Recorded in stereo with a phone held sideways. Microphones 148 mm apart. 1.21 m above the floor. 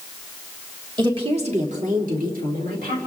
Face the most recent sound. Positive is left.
turn(degrees=-85)